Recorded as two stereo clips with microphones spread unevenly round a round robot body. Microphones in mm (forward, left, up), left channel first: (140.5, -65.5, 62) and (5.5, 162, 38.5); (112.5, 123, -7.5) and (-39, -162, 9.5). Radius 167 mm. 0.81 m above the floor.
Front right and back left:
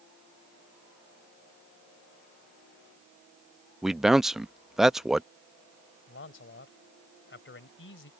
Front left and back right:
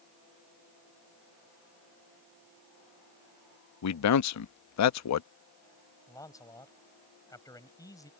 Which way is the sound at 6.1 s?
15° right.